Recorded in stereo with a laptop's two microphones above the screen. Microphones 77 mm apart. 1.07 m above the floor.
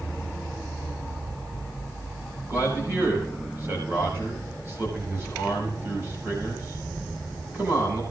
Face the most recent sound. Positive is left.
turn(degrees=-30)  # may be behind; listen again after turning